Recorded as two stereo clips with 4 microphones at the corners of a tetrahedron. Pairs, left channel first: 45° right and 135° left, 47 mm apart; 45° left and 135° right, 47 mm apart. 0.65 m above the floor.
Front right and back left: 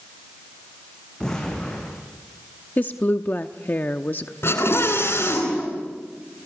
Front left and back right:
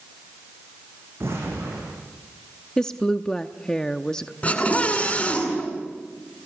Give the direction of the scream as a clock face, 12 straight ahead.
1 o'clock.